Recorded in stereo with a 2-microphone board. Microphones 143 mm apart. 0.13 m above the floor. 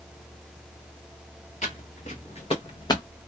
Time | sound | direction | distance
1.6 | footsteps | 55° left (ahead or behind) | 1.5 m